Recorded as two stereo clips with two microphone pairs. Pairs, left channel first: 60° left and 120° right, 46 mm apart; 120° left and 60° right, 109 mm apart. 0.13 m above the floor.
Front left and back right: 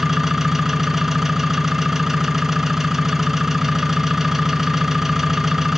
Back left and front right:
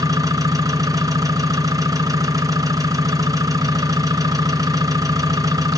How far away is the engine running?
About 1.4 m.